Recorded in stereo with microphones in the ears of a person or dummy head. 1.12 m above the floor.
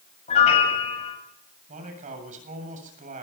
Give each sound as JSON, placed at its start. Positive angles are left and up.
{"t": 0.3, "sound": "a piano", "side_deg": 35, "distance_m": 8.0}
{"t": 1.7, "sound": "a man speaking", "side_deg": -45, "distance_m": 7.5}